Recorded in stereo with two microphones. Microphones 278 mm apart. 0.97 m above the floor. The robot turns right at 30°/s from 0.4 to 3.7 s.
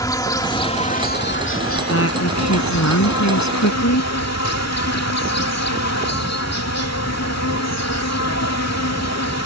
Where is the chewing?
I don't hear chewing.